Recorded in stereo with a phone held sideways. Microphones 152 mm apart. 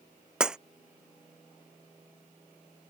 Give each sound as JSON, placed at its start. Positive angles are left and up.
{"t": 0.4, "sound": "breaking glass", "side_deg": -5}